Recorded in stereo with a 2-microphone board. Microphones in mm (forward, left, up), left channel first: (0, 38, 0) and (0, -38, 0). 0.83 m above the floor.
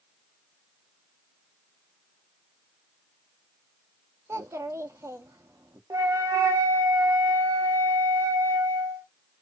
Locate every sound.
4.3 s a child speaking: 40° right (ahead or behind), 0.5 m
5.9 s a flute: 50° right (ahead or behind), 0.6 m